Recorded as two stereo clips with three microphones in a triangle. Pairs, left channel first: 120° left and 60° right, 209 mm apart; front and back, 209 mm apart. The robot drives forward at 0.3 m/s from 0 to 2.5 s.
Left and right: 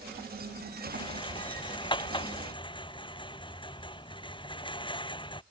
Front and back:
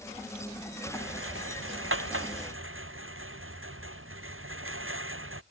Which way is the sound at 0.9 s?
175° right.